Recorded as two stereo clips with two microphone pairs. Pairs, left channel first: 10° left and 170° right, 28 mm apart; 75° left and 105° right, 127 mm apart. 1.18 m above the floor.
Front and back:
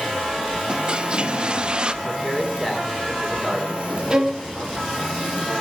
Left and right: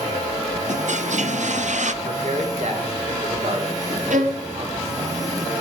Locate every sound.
0.7 s a toilet flushing: 110° right, 0.7 m
2.0 s a man speaking: 70° right, 3 m
4.1 s a violin: 105° right, 1.5 m